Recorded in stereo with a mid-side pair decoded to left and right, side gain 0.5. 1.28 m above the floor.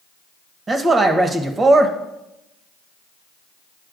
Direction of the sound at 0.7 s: 35° right.